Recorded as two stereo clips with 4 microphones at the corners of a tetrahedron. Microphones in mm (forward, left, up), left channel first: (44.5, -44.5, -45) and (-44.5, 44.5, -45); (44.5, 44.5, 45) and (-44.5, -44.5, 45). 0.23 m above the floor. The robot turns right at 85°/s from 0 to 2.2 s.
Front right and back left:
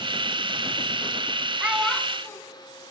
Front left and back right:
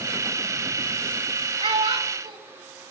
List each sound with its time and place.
1.6 s a child speaking: 155° right, 1.0 m; by 2.4 s 105° right, 1.0 m